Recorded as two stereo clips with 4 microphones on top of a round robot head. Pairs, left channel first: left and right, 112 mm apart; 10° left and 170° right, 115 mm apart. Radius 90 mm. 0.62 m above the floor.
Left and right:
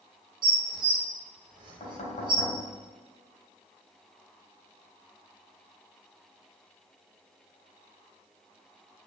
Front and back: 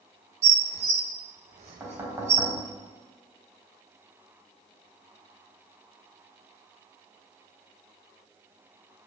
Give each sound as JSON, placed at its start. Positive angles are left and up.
{"t": 0.4, "sound": "dishes clattering", "azimuth_deg": -145, "distance_m": 1.5}
{"t": 1.8, "sound": "knocking", "azimuth_deg": 125, "distance_m": 3.0}